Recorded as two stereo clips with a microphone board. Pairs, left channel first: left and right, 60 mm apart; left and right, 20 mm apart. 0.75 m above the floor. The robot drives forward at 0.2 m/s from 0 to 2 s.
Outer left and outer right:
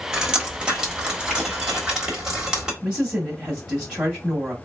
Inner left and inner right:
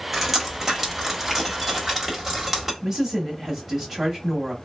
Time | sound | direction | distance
0.1 | dripping | 15° right (ahead or behind) | 1.2 m
2.8 | a woman speaking | 15° right (ahead or behind) | 1.7 m